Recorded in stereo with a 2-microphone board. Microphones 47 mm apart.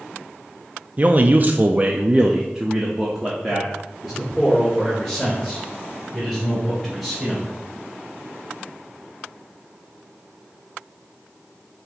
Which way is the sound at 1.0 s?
35° right (ahead or behind).